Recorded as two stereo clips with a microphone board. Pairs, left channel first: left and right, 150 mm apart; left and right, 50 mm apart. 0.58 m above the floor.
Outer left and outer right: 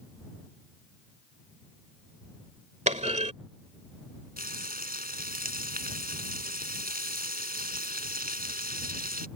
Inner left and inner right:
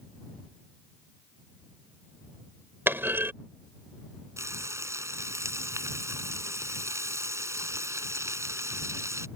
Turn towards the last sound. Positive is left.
turn(degrees=-85)